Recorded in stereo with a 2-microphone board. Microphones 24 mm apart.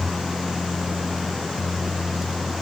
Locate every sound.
Only background noise.